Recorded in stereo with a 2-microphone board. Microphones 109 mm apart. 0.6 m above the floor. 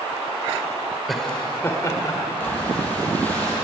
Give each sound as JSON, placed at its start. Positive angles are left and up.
{"t": 1.1, "sound": "laughter", "side_deg": 0, "distance_m": 2.0}
{"t": 2.4, "sound": "breathing", "side_deg": 15, "distance_m": 6.5}